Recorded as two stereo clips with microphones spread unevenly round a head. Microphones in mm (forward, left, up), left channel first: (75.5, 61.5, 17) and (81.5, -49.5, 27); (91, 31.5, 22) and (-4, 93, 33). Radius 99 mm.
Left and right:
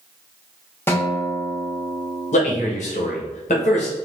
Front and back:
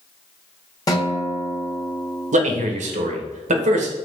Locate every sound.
0.9 s a guitar: 25° left, 1.1 m
2.3 s a man speaking: 135° left, 0.8 m